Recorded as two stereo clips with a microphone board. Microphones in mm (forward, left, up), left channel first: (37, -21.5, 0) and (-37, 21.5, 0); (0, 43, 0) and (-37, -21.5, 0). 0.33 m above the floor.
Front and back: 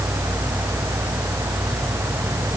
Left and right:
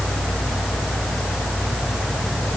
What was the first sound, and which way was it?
Only background noise.